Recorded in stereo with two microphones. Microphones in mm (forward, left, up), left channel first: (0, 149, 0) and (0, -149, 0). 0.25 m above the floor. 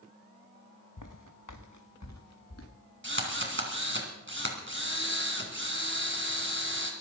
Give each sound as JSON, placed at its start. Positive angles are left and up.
{"t": 1.0, "sound": "footsteps", "side_deg": 80, "distance_m": 1.2}
{"t": 3.0, "sound": "a drill", "side_deg": -40, "distance_m": 3.0}